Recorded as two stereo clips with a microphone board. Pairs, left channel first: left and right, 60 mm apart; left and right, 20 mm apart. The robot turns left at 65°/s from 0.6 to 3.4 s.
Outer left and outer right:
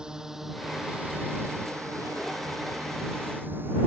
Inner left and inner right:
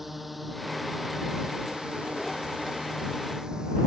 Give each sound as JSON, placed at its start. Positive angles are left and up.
{"t": 0.0, "sound": "a drone", "side_deg": -10}